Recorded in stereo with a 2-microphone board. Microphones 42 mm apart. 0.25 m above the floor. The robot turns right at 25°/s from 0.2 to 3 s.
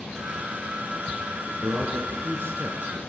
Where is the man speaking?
100° right, 4 m; by 3.0 s 65° right, 4 m.